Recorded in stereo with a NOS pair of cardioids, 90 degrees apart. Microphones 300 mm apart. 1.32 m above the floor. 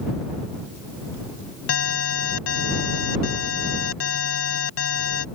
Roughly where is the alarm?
Ahead left.